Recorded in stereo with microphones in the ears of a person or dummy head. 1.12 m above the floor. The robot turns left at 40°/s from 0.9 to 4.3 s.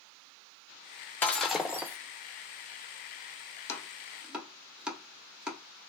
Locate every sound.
1.2 s breaking glass: 10° left, 0.5 m; by 2.0 s 20° right, 0.5 m
3.7 s chopping: 15° left (ahead or behind), 0.7 m; by 5.6 s 5° right (ahead or behind), 0.7 m